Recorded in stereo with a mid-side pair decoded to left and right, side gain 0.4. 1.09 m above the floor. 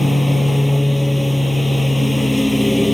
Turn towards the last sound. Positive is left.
turn(degrees=0)